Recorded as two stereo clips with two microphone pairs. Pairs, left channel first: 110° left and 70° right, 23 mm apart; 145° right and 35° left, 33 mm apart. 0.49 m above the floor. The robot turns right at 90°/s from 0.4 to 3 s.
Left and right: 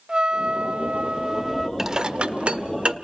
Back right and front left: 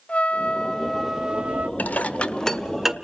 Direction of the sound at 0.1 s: 105° right.